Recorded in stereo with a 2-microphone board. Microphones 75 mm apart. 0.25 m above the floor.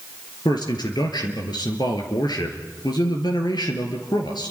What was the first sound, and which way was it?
A man speaking, 70° left (ahead or behind).